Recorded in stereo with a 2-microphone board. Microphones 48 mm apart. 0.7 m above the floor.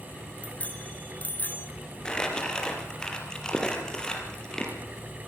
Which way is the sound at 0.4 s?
25° left (ahead or behind).